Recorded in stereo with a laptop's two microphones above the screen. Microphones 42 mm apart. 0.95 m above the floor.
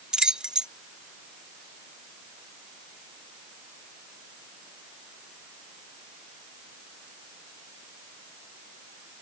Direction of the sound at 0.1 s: 20° right (ahead or behind).